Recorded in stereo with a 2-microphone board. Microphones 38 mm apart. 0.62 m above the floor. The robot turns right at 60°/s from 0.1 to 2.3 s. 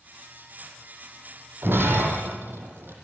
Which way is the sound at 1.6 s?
70° right (ahead or behind).